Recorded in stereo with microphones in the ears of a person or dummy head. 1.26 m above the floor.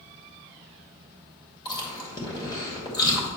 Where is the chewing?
20° left (ahead or behind), 2 m.